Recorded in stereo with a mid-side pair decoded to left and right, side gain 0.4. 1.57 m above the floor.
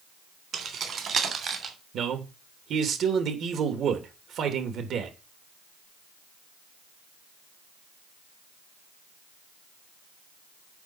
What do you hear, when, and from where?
0.5 s keys jangling: 65° right, 3.5 m; by 1.8 s 60° right, 2.5 m
1.9 s a man speaking: 70° right, 2.5 m